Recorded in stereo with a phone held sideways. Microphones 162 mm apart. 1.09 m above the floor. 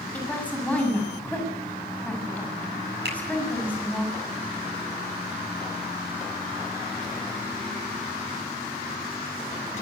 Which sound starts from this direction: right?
A finger snap, at 3.0 s.